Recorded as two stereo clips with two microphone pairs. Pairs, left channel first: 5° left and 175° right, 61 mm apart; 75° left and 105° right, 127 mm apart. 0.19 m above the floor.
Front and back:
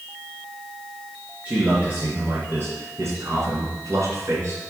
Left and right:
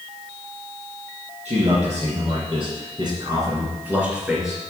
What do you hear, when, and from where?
1.4 s a man speaking: 110° right, 3.5 m; by 4.6 s 160° left, 3.5 m